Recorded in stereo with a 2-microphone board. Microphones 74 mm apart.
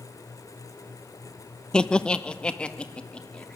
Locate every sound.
1.7 s laughter: 10° left (ahead or behind), 0.8 m; by 3.6 s 15° left (ahead or behind), 3 m